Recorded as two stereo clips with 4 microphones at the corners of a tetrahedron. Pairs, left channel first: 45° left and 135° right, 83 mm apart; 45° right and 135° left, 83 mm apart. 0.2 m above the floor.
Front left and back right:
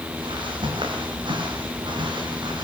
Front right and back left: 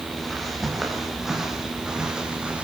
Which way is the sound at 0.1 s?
135° right.